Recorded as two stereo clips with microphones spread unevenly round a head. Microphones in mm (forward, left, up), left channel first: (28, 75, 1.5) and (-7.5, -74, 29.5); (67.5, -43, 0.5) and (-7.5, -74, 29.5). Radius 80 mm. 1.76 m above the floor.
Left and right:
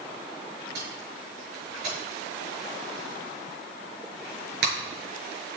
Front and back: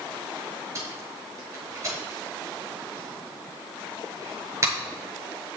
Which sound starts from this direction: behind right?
Tape being pulled, at 0.8 s.